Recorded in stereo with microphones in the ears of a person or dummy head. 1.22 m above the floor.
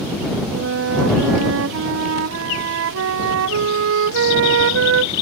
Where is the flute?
75° right (ahead or behind).